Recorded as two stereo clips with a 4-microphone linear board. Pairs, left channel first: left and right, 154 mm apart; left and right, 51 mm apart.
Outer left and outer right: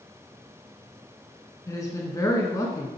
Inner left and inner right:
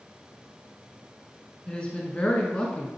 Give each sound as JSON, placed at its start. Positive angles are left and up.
{"t": 1.7, "sound": "a woman speaking", "side_deg": 20, "distance_m": 1.3}